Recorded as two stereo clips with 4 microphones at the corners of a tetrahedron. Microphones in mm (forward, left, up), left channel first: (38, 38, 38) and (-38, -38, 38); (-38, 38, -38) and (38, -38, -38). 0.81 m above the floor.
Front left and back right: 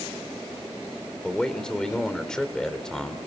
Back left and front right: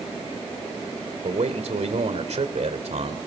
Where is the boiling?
No boiling in this recording.